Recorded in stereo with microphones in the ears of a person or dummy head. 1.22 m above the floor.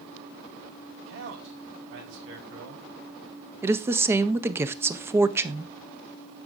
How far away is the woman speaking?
About 0.5 m.